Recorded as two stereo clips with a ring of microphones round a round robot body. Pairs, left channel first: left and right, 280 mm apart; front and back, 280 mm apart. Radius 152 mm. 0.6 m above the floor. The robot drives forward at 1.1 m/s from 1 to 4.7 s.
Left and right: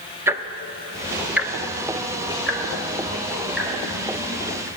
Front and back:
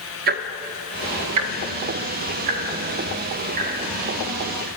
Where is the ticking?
165° right, 0.5 m; by 4.7 s straight behind, 4.5 m.